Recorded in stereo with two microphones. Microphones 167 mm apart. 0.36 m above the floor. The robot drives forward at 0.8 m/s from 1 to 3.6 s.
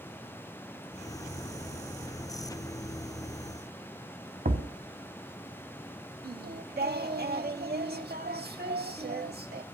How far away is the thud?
About 0.8 m.